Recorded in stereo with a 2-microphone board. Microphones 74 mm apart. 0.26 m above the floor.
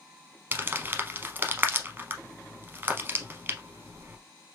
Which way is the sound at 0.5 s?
30° right (ahead or behind).